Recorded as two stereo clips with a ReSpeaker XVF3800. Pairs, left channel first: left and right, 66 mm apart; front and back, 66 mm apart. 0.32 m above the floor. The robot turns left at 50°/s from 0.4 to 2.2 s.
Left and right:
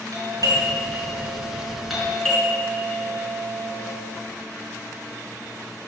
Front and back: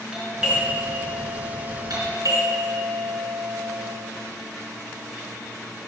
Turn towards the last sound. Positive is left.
turn(degrees=170)